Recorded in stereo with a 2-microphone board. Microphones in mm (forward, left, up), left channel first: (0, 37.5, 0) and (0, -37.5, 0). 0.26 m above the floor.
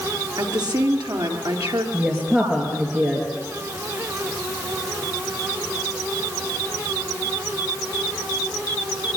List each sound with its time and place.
0.4 s a woman speaking: 70° right (ahead or behind), 3.5 m
1.9 s a woman speaking: 20° right (ahead or behind), 4.5 m